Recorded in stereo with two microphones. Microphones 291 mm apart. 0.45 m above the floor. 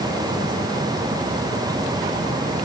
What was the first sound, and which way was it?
Only background noise.